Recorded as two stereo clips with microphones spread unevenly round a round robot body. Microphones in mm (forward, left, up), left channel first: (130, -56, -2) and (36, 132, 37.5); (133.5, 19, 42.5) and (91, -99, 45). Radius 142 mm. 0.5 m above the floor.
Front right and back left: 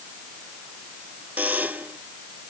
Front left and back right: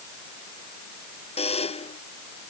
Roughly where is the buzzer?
Ahead left.